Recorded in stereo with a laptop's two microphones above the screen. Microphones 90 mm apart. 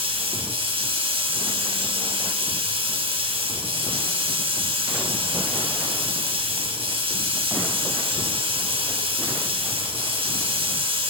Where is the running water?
85° right, 6.5 m.